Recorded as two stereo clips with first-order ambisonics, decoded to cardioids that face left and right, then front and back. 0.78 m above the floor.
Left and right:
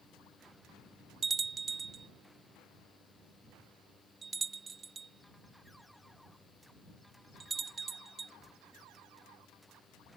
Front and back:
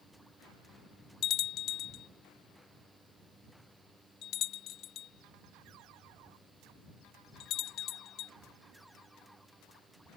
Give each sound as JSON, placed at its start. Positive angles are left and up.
{"t": 1.2, "sound": "a bell", "azimuth_deg": -20}